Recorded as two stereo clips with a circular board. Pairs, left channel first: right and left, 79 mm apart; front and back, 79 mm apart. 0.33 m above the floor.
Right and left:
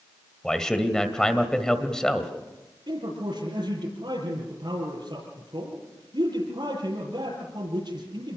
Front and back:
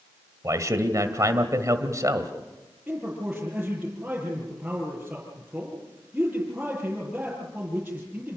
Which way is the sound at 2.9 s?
100° left.